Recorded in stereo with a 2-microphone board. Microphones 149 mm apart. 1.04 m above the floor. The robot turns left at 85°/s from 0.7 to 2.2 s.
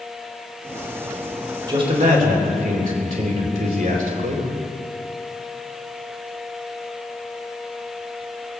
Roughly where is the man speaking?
Ahead right.